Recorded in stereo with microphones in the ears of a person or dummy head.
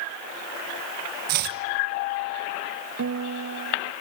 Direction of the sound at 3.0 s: 75° right (ahead or behind).